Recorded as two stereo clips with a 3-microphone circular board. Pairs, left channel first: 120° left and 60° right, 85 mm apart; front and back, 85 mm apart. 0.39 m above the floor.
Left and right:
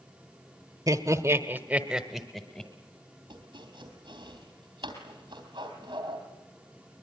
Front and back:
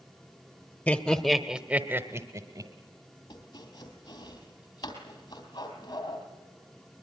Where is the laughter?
65° right, 1.3 m; by 2.7 s 165° right, 1.4 m.